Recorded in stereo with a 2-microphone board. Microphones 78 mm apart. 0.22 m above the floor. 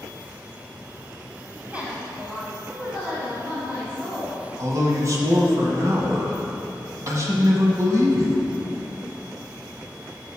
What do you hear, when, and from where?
1.7 s a woman speaking: 15° right (ahead or behind), 1.2 m; by 4.4 s 10° right (ahead or behind), 2.5 m
4.6 s a man speaking: 40° right (ahead or behind), 1.2 m